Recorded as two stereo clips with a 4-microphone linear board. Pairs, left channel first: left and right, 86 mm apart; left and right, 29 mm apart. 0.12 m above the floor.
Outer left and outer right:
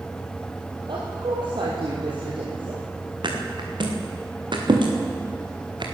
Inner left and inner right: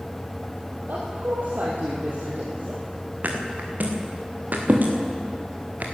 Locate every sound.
0.9 s a woman speaking: 65° right (ahead or behind), 3 m
3.2 s a thud: 65° right (ahead or behind), 3 m